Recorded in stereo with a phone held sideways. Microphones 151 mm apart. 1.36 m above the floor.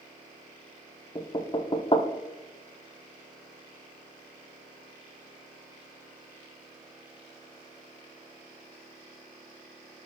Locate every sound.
1.1 s knocking: 35° left (ahead or behind), 0.5 m